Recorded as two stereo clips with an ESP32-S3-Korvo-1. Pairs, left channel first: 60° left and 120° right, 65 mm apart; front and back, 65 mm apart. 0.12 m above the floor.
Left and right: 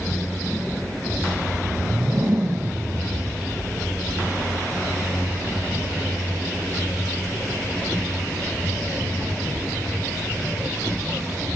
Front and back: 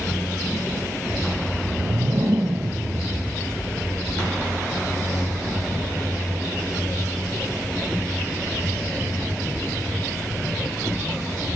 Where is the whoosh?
Straight behind, 0.6 m.